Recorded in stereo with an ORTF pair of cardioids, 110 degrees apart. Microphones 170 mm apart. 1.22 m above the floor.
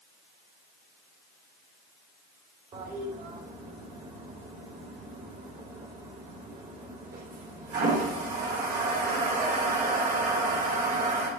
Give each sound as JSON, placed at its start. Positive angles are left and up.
{"t": 2.7, "sound": "a toilet flushing", "azimuth_deg": -60, "distance_m": 4.0}